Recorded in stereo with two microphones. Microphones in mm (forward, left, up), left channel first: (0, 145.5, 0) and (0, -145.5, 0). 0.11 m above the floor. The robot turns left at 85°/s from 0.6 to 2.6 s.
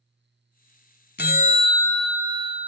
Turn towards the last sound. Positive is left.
turn(degrees=-50)